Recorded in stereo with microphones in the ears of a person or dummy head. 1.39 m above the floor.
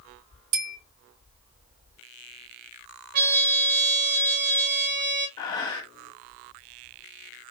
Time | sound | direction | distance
0.5 | a bell | 60° right (ahead or behind) | 1.8 m
3.1 | a trumpet | 50° right (ahead or behind) | 1.1 m
5.4 | breathing | 15° left (ahead or behind) | 0.9 m